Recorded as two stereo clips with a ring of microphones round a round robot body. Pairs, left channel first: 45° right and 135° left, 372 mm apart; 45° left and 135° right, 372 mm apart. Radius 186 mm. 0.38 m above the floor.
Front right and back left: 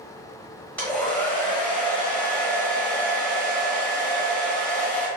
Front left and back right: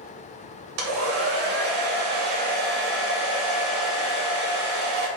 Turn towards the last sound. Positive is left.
turn(degrees=-130)